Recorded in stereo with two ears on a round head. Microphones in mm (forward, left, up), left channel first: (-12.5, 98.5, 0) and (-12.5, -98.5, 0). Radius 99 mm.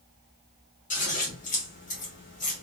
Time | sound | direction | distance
0.9 | scissors | 35° left (ahead or behind) | 1.1 m